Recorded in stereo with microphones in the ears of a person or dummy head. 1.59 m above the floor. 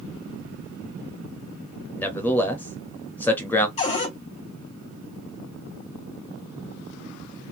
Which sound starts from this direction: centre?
A man speaking, at 1.9 s.